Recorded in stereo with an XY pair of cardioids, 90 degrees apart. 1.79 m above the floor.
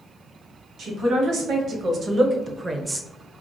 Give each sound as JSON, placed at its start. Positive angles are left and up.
{"t": 0.8, "sound": "a man speaking", "azimuth_deg": -70, "distance_m": 1.5}